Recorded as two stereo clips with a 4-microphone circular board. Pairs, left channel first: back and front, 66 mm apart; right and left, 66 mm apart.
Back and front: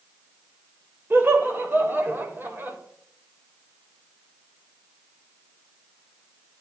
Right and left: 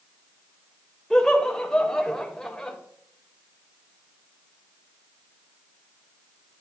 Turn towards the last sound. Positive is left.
turn(degrees=-15)